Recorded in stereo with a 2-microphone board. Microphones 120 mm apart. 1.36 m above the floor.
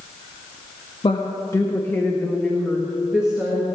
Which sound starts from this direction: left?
A woman speaking, at 1.0 s.